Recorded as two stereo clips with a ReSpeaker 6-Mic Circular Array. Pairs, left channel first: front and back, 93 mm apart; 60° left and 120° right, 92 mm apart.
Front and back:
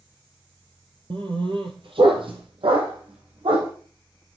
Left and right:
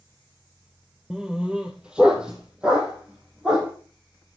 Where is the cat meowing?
I don't hear a cat meowing.